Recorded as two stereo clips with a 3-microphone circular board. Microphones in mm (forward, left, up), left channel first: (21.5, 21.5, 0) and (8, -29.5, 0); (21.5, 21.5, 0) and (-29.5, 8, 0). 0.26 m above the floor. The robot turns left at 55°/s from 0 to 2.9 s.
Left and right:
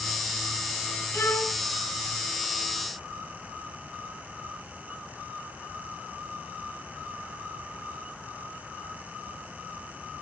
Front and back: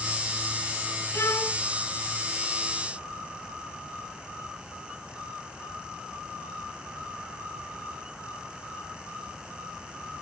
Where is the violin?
40° left, 2.5 m; by 1.6 s 15° left, 2.5 m.